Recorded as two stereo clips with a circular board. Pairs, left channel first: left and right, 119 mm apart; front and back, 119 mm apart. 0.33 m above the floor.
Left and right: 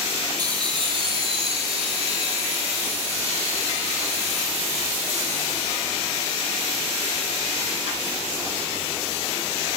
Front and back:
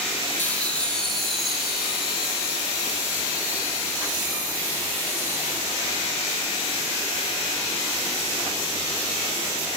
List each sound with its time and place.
0.4 s laughter: 65° right, 1.8 m; by 6.1 s 105° right, 7.5 m